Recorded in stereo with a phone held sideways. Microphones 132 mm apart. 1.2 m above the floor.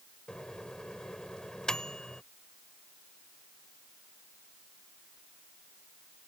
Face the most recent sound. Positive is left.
turn(degrees=5)  # may be behind; listen again after turning